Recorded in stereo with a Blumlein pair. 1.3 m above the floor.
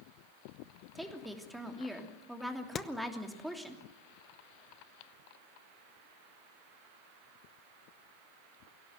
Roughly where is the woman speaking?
Ahead.